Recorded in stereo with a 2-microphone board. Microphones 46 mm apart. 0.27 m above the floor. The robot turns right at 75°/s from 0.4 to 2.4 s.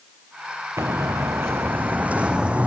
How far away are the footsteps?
About 1.8 m.